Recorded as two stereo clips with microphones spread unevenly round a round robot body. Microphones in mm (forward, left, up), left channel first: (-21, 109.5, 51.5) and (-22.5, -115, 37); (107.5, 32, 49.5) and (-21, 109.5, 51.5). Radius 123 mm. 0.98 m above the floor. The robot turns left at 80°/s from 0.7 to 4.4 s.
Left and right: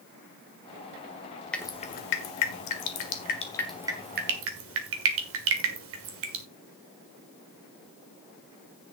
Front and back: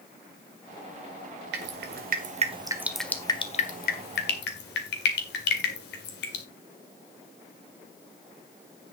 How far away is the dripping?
About 1.6 m.